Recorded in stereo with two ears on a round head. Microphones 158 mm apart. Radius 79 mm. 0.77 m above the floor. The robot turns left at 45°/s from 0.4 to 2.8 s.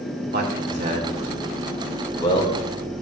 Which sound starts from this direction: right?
A man speaking, at 0.3 s.